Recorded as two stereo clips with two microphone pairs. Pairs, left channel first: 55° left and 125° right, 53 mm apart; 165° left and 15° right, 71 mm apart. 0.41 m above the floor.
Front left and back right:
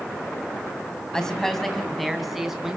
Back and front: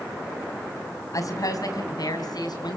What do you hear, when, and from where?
1.1 s a woman speaking: 135° left, 3 m; by 2.8 s 155° left, 4.5 m